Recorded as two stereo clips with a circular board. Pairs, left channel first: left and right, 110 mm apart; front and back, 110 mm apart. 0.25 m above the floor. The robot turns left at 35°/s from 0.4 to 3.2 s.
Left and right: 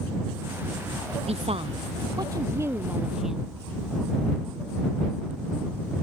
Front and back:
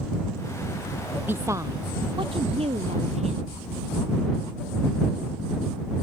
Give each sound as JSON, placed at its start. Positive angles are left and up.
{"t": 1.3, "sound": "a woman speaking", "azimuth_deg": -110}